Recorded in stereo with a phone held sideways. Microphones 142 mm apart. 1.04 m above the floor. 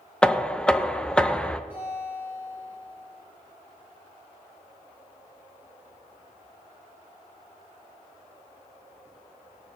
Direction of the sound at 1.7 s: 15° right (ahead or behind).